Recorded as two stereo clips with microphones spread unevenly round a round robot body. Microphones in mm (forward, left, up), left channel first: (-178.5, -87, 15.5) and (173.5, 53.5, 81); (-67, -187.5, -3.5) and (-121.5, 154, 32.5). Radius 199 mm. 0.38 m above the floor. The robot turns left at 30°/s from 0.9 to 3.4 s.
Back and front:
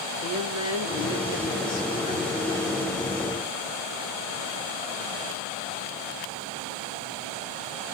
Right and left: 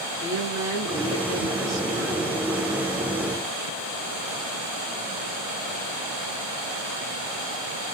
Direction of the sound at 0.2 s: Straight behind.